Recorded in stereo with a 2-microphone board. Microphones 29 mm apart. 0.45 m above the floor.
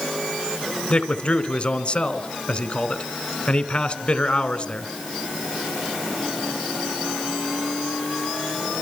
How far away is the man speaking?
About 2.5 m.